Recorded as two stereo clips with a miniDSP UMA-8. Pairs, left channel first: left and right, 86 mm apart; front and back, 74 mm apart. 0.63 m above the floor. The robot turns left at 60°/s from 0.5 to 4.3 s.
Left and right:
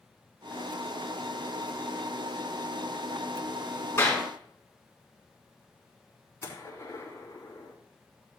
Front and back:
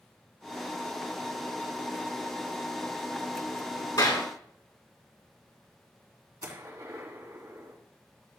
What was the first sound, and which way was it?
A clap, 30° left.